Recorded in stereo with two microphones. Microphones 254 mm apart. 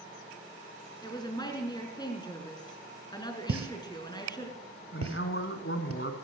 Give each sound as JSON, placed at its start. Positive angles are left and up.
{"t": 1.0, "sound": "a woman speaking", "side_deg": 15, "distance_m": 3.0}
{"t": 3.5, "sound": "a pop", "side_deg": -65, "distance_m": 1.1}
{"t": 4.9, "sound": "a man speaking", "side_deg": 50, "distance_m": 1.9}